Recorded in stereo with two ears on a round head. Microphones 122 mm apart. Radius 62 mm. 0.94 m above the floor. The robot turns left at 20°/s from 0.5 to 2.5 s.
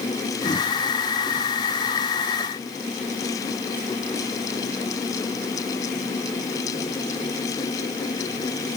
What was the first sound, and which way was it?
Only background noise.